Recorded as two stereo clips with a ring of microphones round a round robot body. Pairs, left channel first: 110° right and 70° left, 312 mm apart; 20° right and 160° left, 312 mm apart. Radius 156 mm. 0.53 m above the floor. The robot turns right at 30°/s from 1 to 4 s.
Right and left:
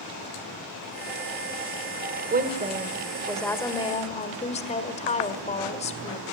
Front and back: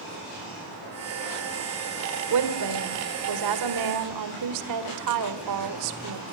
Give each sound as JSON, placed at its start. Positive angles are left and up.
{"t": 2.3, "sound": "a woman speaking", "azimuth_deg": 130, "distance_m": 1.7}